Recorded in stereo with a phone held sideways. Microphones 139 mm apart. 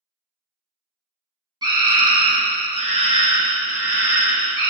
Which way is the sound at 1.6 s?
30° right (ahead or behind).